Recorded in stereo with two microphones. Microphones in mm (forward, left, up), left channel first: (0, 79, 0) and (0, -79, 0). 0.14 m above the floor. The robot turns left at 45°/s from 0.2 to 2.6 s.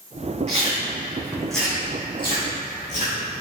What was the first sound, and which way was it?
Chewing, 45° right (ahead or behind).